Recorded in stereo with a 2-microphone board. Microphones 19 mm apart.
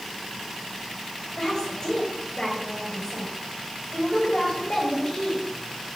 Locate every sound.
1.4 s a woman speaking: 50° left (ahead or behind), 5.5 m